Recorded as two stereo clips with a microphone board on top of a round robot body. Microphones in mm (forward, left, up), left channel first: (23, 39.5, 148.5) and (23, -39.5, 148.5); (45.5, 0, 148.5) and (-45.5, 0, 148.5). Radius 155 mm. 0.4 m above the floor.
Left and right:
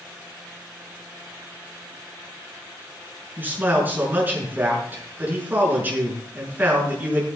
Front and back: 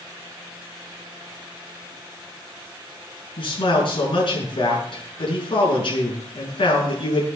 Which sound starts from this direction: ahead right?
A man speaking, at 3.4 s.